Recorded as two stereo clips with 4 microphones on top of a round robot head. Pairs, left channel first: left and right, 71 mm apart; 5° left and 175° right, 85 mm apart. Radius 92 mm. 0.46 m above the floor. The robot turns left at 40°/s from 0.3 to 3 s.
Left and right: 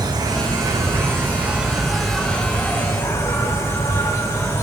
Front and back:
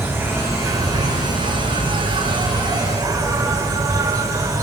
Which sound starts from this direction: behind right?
An insect, at 0.0 s.